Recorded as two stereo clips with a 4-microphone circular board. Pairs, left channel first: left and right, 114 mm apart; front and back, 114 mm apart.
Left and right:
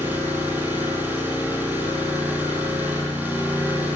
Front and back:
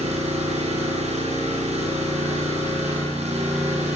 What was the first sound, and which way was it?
An engine running, 165° right.